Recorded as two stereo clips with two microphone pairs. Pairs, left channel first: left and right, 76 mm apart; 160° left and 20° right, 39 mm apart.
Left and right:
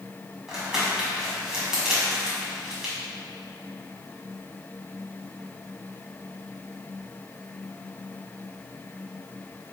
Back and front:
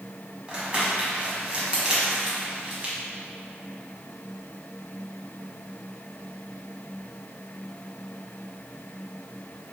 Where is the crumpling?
20° right, 1.3 m.